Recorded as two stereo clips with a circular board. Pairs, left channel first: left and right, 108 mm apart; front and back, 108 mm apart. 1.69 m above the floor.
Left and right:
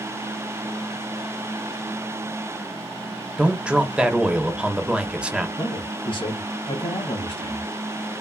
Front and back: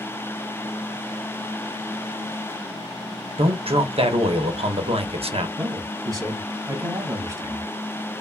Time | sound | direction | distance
3.4 | a man speaking | 170° right | 1.0 m
5.6 | a man speaking | 125° left | 2.5 m